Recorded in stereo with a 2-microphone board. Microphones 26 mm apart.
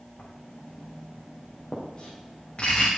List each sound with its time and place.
0.2 s writing: 45° left (ahead or behind), 4.5 m